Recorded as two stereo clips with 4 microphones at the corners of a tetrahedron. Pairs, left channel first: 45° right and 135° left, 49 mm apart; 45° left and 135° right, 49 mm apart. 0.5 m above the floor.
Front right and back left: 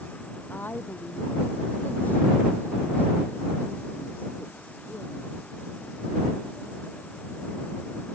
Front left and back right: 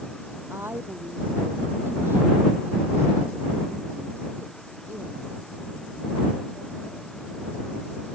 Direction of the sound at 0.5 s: 95° right.